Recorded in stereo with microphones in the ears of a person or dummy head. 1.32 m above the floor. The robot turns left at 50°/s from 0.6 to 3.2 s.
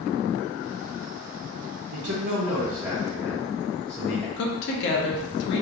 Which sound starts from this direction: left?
A woman speaking, at 4.4 s.